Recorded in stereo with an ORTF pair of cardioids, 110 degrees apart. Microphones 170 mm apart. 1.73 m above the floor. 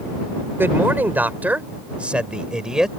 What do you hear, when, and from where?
0.6 s a man speaking: 15° right; by 2.9 s 5° right